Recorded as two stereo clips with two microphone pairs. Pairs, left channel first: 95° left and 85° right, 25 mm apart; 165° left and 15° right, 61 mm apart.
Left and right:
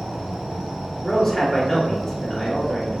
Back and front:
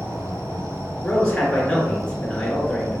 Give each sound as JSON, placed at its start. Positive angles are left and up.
{"t": 0.0, "sound": "an insect", "azimuth_deg": -60, "distance_m": 1.4}
{"t": 1.0, "sound": "a man speaking", "azimuth_deg": 105, "distance_m": 1.6}